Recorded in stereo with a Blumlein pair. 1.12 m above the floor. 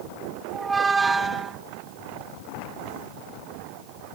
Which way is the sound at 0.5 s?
10° right.